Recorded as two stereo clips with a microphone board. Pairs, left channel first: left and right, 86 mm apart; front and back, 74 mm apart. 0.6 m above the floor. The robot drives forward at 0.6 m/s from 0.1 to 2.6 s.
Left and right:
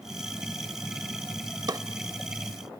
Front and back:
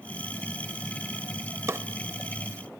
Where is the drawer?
130° right, 0.8 m; by 1.8 s 135° right, 0.8 m.